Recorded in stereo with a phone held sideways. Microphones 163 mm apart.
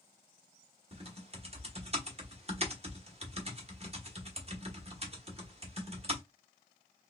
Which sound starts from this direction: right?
Typing on a keyboard, at 0.9 s.